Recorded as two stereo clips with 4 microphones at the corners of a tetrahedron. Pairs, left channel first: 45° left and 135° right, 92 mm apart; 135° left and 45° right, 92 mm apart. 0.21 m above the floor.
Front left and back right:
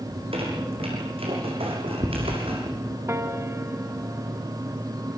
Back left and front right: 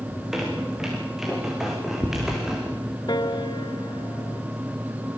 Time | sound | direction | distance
0.1 | a squeak | 130° right | 7 m
3.1 | a piano | 165° left | 1.4 m